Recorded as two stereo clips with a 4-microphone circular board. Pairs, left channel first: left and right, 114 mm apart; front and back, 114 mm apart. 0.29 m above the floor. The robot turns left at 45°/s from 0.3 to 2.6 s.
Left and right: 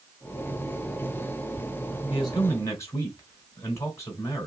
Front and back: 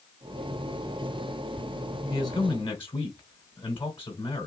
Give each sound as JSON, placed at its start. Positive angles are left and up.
{"t": 2.1, "sound": "a man speaking", "azimuth_deg": 50, "distance_m": 2.5}